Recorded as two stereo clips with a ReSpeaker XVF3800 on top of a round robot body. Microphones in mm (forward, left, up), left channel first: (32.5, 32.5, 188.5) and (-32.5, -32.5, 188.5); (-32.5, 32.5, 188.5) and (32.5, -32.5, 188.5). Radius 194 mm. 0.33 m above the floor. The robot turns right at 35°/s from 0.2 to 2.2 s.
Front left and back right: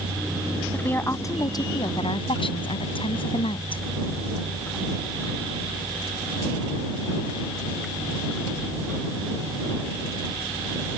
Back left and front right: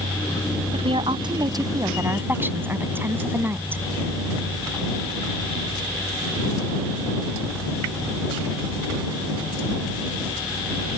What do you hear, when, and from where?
0.7 s a woman speaking: 30° right; by 3.8 s 25° left